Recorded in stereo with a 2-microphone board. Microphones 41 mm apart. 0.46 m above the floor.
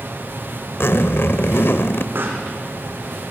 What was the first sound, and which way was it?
A zipper, 65° left (ahead or behind).